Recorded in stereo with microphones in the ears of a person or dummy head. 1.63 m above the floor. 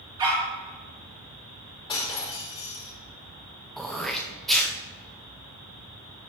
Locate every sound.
0.2 s a dog barking: 20° right (ahead or behind), 2 m
1.9 s breaking glass: 30° left (ahead or behind), 2.5 m
3.8 s throat clearing: 5° left (ahead or behind), 0.7 m